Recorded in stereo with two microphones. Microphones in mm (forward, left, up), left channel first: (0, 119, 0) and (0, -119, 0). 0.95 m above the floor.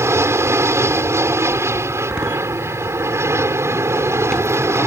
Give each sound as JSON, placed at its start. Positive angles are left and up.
{"t": 0.0, "sound": "an aircraft", "side_deg": -10}
{"t": 2.0, "sound": "a door slam", "side_deg": 5}